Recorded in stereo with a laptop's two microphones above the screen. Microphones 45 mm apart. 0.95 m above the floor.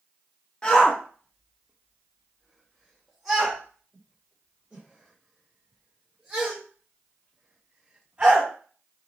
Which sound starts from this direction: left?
A shout, at 0.6 s.